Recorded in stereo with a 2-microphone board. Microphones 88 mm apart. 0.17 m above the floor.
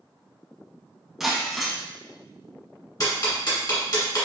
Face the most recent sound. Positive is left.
turn(degrees=45)  # may be behind; listen again after turning